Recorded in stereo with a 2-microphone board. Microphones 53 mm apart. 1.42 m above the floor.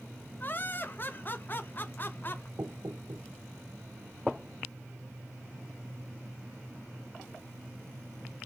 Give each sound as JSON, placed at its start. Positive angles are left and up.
{"t": 0.4, "sound": "laughter", "side_deg": 40, "distance_m": 0.5}
{"t": 2.6, "sound": "knocking", "side_deg": -85, "distance_m": 1.7}